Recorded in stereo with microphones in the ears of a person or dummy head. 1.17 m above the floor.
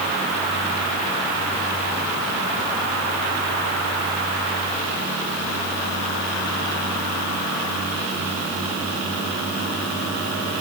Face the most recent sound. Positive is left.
No sound to turn to.